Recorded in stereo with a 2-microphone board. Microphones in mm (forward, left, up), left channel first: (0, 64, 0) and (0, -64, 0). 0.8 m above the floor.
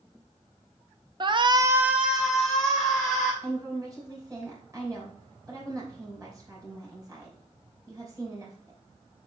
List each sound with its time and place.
1.2 s a shout: 35° right (ahead or behind), 0.6 m; by 3.3 s 5° left (ahead or behind), 3 m
3.4 s a woman speaking: 25° right (ahead or behind), 3 m